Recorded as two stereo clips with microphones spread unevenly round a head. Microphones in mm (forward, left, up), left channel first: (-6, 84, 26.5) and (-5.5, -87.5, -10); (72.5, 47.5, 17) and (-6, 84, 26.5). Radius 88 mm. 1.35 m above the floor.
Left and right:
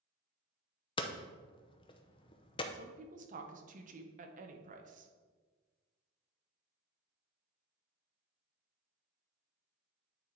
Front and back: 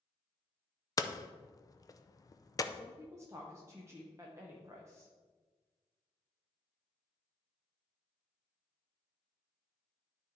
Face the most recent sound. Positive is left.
turn(degrees=-130)